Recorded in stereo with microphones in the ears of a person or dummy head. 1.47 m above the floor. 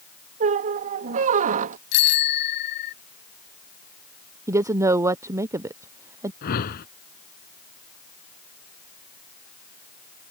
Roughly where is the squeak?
Right.